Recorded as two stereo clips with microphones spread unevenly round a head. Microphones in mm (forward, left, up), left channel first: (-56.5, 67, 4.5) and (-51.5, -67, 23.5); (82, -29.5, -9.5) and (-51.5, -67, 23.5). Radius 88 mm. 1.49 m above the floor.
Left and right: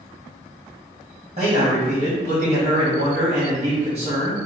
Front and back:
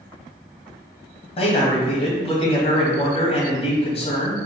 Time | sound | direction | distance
1.4 | a man speaking | 35° right | 1.5 m